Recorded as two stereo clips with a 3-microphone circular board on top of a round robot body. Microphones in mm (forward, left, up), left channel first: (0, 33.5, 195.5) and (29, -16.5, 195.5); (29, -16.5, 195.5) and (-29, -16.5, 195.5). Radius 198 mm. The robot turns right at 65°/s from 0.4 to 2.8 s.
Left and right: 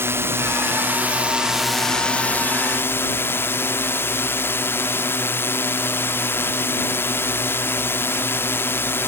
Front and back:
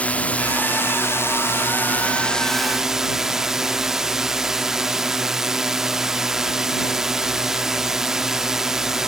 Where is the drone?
55° right; by 9.1 s 100° left.